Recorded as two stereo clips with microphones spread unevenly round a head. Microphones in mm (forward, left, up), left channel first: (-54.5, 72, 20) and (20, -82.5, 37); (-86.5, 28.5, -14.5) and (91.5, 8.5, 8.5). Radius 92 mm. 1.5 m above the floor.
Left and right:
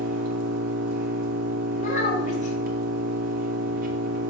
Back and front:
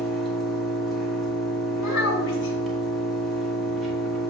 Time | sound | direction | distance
0.0 | an engine running | 90° right | 1.1 m
1.8 | a child speaking | 165° left | 2.0 m